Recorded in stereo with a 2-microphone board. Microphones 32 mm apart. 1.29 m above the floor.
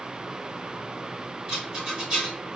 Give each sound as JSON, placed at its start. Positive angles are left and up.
{"t": 1.5, "sound": "a rattle", "side_deg": -25, "distance_m": 1.8}